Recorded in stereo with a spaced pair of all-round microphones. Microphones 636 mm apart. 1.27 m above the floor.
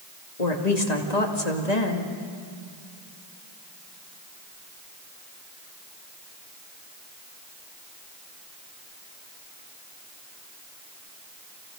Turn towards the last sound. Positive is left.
turn(degrees=90)